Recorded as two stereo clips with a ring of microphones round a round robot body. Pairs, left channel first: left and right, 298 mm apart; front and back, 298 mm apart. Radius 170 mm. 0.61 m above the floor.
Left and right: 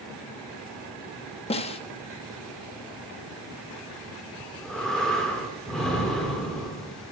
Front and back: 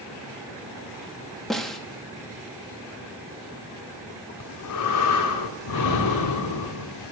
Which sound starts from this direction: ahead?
Breathing, at 4.4 s.